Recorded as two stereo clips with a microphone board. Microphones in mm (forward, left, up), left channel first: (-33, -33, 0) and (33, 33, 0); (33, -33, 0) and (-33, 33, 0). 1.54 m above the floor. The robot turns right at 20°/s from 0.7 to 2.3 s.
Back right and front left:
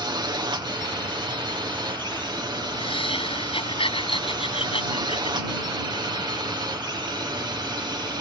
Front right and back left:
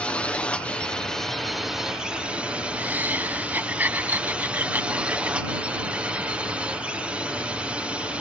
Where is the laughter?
155° right.